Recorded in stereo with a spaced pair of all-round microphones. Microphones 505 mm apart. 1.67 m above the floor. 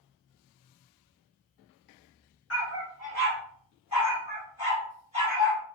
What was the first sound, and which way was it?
A dog barking, 30° left (ahead or behind).